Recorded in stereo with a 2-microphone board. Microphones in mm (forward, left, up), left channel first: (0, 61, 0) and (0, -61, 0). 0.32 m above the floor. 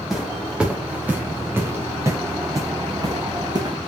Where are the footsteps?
Centre (ahead or behind), 4 m; by 3.8 s 35° right (ahead or behind), 4.5 m.